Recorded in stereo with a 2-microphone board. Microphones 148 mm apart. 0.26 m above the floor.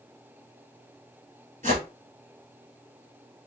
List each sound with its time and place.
1.6 s a whoosh: 65° right (ahead or behind), 1.6 m